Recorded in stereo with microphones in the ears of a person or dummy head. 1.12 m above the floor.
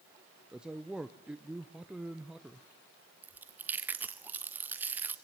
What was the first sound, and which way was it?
A man speaking, 5° right (ahead or behind).